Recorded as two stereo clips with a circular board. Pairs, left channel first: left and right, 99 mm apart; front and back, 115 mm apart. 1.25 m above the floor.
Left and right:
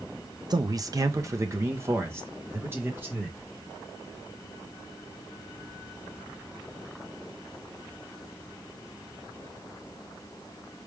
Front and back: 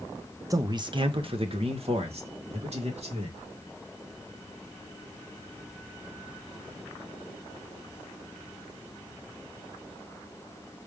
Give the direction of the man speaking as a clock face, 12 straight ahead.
4 o'clock.